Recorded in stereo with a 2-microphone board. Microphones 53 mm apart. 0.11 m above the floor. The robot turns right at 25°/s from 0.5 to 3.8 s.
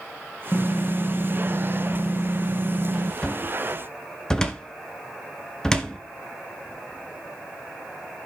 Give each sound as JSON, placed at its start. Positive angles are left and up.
{"t": 0.5, "sound": "typing on a keyboard", "azimuth_deg": 150, "distance_m": 3.0}
{"t": 3.2, "sound": "a cupboard door", "side_deg": 15, "distance_m": 1.1}